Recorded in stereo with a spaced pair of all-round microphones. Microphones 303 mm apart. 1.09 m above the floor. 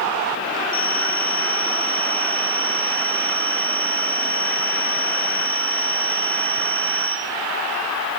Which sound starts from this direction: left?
A phone ringing, at 0.7 s.